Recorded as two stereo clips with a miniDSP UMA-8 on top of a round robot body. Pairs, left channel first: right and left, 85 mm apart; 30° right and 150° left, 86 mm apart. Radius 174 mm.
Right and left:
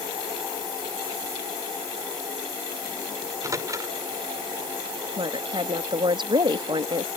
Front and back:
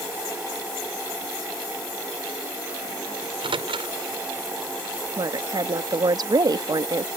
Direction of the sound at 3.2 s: 140° left.